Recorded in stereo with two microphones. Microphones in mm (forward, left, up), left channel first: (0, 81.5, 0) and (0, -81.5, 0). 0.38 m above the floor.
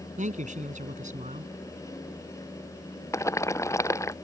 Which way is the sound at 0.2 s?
50° right (ahead or behind).